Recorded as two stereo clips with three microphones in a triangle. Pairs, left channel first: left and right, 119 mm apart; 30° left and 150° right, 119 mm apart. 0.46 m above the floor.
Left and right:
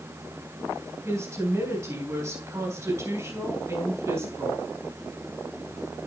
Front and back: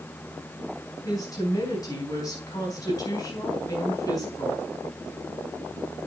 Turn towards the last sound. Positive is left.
turn(degrees=-25)